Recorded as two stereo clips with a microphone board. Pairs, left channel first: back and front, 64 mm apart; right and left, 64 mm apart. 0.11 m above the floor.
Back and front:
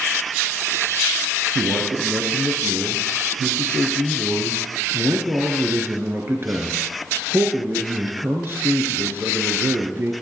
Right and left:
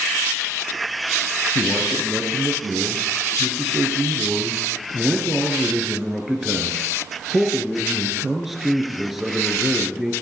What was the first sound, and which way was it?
A man speaking, 5° left.